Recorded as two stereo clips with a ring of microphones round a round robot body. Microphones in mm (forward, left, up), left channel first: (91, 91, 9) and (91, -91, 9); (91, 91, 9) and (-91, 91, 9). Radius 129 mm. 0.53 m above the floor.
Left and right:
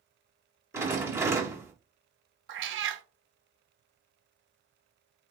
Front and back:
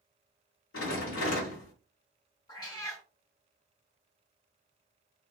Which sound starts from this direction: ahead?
A rattle, at 0.7 s.